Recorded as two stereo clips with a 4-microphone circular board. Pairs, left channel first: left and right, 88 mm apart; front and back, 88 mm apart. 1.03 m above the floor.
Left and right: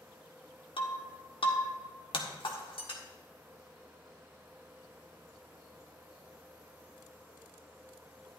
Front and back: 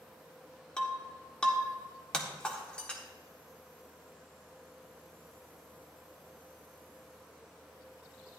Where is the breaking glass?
80° left, 1.5 m.